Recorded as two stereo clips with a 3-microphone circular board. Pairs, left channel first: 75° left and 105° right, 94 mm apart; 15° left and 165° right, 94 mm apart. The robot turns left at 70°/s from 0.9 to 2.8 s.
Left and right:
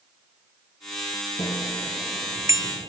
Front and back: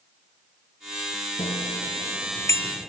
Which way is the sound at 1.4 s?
30° left.